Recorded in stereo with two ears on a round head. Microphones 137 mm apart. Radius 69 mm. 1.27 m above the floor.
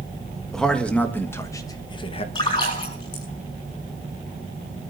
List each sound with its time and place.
0.5 s a man speaking: 5° left (ahead or behind), 1.6 m; by 2.2 s 40° left (ahead or behind), 1.1 m
2.4 s a splash: 30° left (ahead or behind), 6.5 m